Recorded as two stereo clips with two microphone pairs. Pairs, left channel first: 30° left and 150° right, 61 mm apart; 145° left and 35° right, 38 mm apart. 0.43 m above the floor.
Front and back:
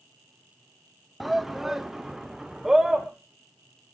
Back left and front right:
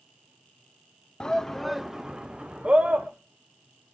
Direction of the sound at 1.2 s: 120° left.